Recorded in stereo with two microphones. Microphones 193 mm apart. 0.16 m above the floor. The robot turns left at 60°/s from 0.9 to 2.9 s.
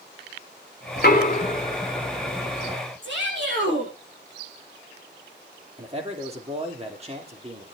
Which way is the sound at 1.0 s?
60° left (ahead or behind).